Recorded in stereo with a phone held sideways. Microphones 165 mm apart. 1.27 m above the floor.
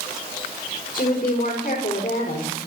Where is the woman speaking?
60° left (ahead or behind), 4.5 m.